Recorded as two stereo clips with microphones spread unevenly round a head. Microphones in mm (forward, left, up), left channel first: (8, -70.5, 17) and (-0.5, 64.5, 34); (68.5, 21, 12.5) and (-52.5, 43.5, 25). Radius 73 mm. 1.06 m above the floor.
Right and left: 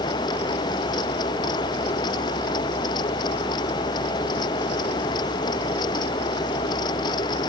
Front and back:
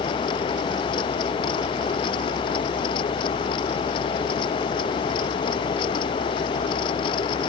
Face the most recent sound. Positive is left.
No sound to turn to.